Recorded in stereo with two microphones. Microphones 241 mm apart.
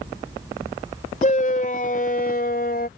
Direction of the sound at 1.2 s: 35° left (ahead or behind).